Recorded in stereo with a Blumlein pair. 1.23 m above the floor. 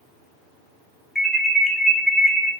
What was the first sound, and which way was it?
An alarm, 10° left.